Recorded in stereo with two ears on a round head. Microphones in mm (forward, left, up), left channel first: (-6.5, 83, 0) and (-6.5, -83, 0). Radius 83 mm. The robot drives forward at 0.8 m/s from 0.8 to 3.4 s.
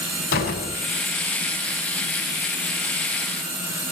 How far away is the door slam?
About 7 m.